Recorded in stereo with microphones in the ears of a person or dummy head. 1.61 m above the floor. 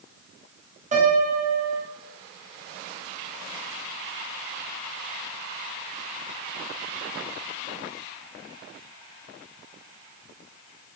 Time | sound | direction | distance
0.9 | a piano | 35° right (ahead or behind) | 0.9 m